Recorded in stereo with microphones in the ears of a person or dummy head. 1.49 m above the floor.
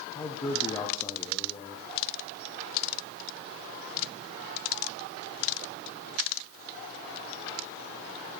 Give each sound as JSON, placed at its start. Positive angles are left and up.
{"t": 0.1, "sound": "a man speaking", "side_deg": 20, "distance_m": 0.7}